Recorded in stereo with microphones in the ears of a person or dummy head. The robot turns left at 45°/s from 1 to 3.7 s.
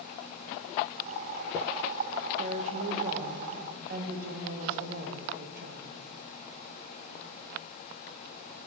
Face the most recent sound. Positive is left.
turn(degrees=-120)